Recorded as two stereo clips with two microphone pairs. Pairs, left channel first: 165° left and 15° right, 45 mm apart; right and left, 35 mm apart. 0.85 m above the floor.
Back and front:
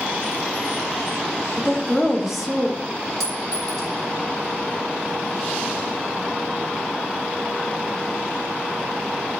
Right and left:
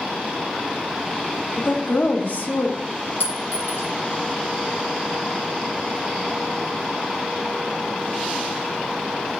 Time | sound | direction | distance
1.6 | a woman speaking | 105° right | 1.4 m
3.2 | a clink | 115° right | 4 m